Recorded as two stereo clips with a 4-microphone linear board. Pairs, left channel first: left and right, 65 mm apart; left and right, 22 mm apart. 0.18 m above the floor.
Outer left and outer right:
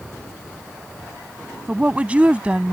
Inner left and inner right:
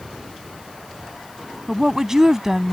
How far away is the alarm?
I don't hear an alarm.